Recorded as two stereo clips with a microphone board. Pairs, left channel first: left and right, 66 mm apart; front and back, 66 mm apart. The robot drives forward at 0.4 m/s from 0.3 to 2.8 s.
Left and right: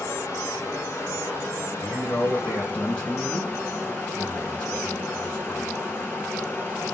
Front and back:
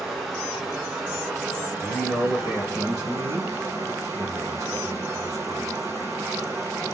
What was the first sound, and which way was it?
Running water, 100° left.